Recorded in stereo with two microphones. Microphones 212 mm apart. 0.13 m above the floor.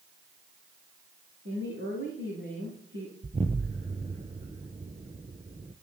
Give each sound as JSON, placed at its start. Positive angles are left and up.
{"t": 1.4, "sound": "a woman speaking", "side_deg": -65, "distance_m": 9.0}
{"t": 3.2, "sound": "an explosion", "side_deg": -30, "distance_m": 0.9}